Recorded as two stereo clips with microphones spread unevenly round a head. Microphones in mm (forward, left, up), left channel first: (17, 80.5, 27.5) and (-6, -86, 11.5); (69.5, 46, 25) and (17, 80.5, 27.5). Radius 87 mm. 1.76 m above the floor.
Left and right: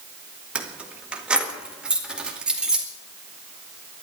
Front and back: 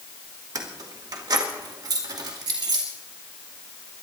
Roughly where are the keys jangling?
Behind.